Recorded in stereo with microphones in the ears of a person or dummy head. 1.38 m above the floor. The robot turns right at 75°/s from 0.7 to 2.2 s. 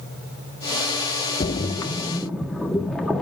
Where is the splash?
30° left (ahead or behind), 0.7 m; by 3.2 s 5° left (ahead or behind), 0.7 m.